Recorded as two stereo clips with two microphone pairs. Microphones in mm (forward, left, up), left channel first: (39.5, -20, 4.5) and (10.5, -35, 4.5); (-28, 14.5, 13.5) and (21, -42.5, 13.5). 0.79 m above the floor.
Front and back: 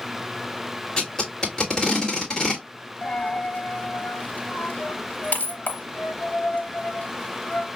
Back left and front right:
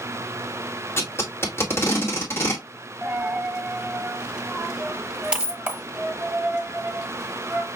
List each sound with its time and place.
1.0 s tape being pulled: 90° left, 1.5 m
3.0 s a dropped coin: 25° left, 1.1 m